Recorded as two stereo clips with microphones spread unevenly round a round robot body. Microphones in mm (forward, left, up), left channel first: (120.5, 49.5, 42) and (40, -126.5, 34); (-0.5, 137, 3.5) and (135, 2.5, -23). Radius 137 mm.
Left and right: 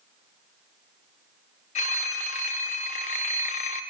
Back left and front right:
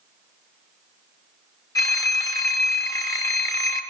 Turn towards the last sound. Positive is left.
turn(degrees=65)